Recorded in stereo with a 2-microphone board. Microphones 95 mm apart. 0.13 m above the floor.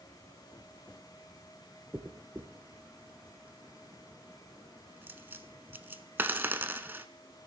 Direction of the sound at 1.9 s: 20° right (ahead or behind).